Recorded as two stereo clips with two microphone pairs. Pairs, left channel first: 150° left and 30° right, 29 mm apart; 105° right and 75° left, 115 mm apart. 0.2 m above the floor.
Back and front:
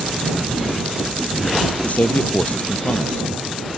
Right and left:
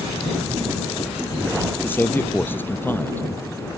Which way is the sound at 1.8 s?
175° right.